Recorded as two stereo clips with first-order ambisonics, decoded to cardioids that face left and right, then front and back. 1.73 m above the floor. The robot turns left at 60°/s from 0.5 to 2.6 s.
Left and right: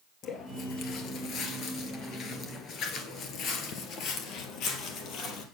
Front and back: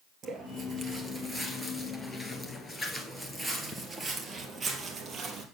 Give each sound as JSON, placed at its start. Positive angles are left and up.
{"t": 0.2, "sound": "footsteps", "azimuth_deg": 135, "distance_m": 2.5}